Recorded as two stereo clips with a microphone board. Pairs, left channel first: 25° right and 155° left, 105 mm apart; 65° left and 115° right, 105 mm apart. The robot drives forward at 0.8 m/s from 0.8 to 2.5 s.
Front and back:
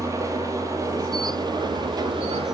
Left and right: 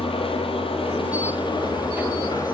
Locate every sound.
0.0 s an engine running: 100° left, 2.5 m; by 2.5 s 125° left, 3 m